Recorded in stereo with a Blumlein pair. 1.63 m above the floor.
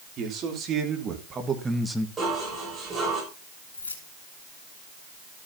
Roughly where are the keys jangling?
Left.